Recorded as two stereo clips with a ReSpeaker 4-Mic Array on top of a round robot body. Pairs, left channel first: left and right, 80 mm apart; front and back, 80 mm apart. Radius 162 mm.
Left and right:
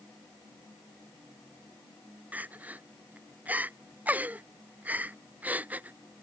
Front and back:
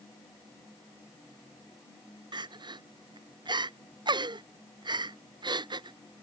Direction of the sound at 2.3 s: 160° right.